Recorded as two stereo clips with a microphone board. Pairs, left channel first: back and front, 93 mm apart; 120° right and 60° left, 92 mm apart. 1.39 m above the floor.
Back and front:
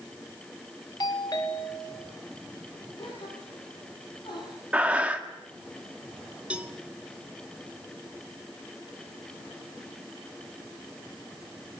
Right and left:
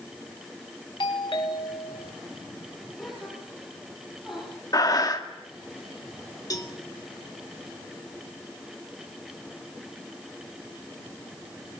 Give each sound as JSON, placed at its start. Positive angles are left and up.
{"t": 1.0, "sound": "a doorbell", "azimuth_deg": -145, "distance_m": 2.5}
{"t": 3.0, "sound": "a gasp", "azimuth_deg": 145, "distance_m": 9.0}
{"t": 4.7, "sound": "breathing", "azimuth_deg": -75, "distance_m": 1.9}
{"t": 6.5, "sound": "a cowbell", "azimuth_deg": -75, "distance_m": 1.6}